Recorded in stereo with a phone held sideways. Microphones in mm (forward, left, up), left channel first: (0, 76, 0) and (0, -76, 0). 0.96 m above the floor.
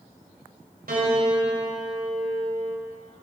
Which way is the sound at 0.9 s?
70° right (ahead or behind).